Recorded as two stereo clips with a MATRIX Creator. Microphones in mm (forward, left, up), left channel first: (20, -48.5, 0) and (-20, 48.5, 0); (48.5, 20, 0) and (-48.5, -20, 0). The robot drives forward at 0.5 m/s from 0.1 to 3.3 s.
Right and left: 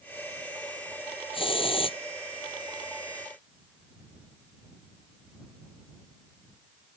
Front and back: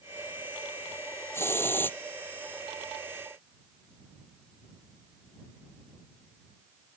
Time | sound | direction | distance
1.3 | a hiss | 45° right | ?